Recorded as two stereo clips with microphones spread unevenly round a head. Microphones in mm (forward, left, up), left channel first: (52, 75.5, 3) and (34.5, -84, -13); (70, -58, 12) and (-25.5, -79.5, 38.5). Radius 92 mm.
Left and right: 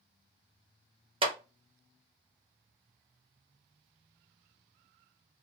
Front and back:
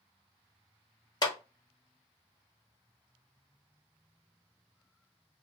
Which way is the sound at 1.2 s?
40° right.